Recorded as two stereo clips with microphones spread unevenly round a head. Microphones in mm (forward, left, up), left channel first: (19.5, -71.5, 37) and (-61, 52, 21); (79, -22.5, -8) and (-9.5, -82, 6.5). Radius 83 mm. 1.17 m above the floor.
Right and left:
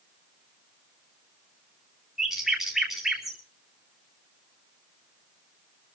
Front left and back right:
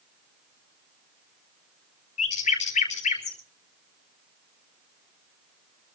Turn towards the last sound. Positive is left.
turn(degrees=35)